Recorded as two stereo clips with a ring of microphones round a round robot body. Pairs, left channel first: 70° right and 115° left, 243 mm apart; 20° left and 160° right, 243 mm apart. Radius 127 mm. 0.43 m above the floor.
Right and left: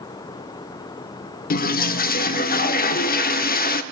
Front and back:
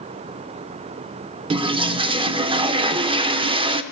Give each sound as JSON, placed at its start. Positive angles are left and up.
{"t": 1.5, "sound": "a toilet flushing", "azimuth_deg": -100, "distance_m": 0.6}